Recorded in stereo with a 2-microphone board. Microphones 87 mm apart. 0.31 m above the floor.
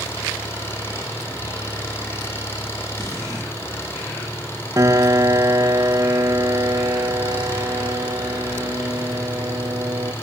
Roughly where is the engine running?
Left.